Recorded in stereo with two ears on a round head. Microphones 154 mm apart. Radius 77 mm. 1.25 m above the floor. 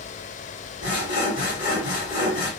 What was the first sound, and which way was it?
Sawing, 60° left (ahead or behind).